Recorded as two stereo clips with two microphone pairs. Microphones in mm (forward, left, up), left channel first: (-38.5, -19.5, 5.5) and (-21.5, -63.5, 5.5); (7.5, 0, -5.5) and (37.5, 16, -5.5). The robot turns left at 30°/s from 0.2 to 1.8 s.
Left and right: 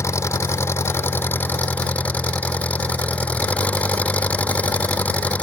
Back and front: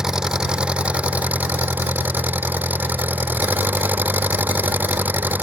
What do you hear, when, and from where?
0.0 s an engine running: 100° left; by 5.4 s 50° left